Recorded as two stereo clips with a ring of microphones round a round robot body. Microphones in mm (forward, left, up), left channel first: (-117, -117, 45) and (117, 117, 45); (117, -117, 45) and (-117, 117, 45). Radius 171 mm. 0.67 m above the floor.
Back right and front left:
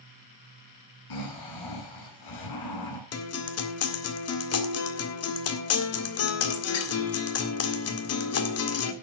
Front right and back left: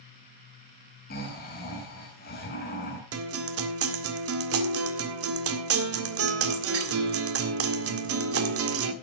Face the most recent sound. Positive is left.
turn(degrees=180)